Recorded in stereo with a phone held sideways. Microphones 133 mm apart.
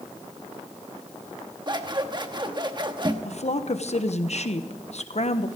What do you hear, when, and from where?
1.7 s scissors: 35° right (ahead or behind), 1.0 m
3.2 s a woman speaking: 60° left (ahead or behind), 1.0 m